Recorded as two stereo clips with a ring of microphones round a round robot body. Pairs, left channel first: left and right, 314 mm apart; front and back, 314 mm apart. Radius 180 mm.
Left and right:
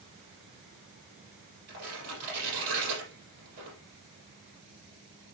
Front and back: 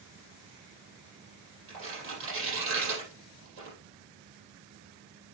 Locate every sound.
1.7 s tearing paper: 130° right, 5.5 m